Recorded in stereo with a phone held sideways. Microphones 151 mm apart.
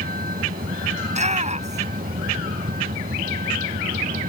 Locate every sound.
0.0 s a vehicle: 80° right; by 4.3 s 75° right (ahead or behind)
1.0 s a shout: 50° right (ahead or behind)